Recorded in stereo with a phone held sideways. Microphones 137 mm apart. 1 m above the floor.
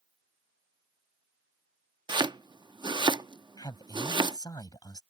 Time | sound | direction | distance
2.1 | chopping | 35° right (ahead or behind) | ?
3.6 | a man speaking | 30° left (ahead or behind) | ?